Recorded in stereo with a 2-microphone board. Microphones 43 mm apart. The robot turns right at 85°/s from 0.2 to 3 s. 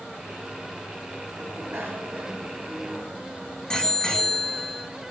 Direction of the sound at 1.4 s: 60° right (ahead or behind).